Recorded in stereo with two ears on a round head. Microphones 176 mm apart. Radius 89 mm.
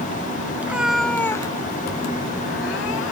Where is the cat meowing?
10° right (ahead or behind); by 3.1 s 70° left (ahead or behind).